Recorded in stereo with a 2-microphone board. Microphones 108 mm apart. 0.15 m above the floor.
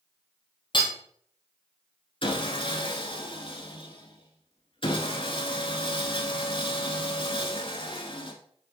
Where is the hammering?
45° left (ahead or behind), 1.6 m.